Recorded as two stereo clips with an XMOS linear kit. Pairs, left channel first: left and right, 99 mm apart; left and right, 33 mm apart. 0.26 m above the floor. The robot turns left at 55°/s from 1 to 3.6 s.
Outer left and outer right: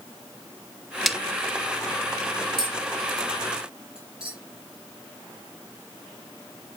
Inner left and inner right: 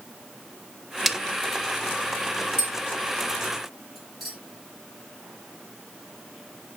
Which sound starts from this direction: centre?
A snare drum, at 1.1 s.